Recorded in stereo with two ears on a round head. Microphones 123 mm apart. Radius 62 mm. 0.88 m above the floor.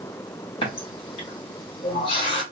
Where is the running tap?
40° left (ahead or behind), 1.1 m.